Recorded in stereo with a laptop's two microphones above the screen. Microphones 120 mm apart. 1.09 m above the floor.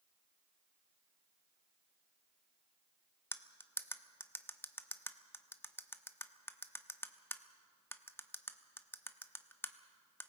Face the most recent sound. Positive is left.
turn(degrees=20)  # may be behind; listen again after turning